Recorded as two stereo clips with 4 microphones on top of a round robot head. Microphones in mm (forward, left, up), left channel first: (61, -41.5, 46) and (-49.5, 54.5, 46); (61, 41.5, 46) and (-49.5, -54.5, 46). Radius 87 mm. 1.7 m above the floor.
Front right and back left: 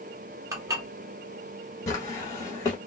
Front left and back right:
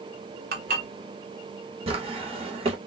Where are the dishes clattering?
155° right, 1.2 m.